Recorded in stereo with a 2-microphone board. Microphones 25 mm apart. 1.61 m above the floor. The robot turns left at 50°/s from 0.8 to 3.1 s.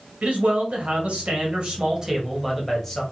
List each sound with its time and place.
0.2 s a man speaking: 85° right, 1.0 m; by 3.0 s 165° left, 1.0 m